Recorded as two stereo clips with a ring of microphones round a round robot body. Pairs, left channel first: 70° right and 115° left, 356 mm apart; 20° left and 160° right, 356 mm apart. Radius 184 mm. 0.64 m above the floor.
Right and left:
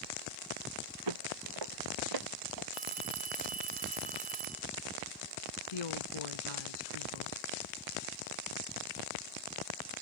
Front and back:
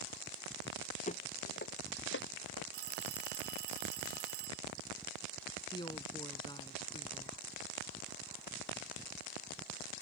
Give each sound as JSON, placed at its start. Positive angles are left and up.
{"t": 1.1, "sound": "footsteps", "azimuth_deg": 95}
{"t": 2.7, "sound": "a phone ringing", "azimuth_deg": 180}
{"t": 5.7, "sound": "a woman speaking", "azimuth_deg": -55}